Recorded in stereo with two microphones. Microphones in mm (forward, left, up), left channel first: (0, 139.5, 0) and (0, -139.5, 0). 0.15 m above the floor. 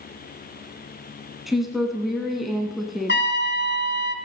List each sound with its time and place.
1.5 s a woman speaking: centre (ahead or behind), 1.0 m
3.1 s a trumpet: 40° left (ahead or behind), 0.8 m